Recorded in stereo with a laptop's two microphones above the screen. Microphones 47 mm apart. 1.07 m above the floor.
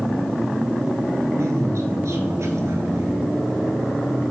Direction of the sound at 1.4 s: 75° right (ahead or behind).